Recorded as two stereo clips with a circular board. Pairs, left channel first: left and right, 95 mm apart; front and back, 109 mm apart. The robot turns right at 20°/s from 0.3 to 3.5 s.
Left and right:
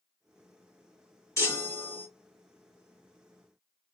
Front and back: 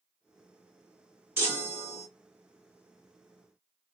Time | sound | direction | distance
1.4 | a chime | 125° left | 1.7 m